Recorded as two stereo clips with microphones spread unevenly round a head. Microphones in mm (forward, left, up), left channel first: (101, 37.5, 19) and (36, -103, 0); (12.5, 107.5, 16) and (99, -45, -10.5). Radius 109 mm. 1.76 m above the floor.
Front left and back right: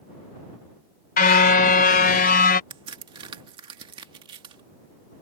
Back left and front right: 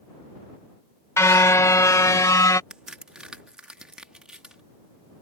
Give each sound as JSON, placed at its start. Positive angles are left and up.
{"t": 1.2, "sound": "a car horn", "azimuth_deg": 50}
{"t": 2.7, "sound": "a crack", "azimuth_deg": -160}